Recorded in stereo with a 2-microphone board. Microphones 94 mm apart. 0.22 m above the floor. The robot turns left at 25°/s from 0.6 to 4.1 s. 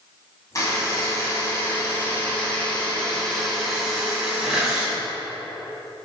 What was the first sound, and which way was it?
A buzzer, 75° left.